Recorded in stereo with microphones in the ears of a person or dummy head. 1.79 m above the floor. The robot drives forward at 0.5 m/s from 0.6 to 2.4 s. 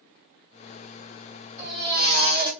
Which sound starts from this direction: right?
A baby crying, at 1.6 s.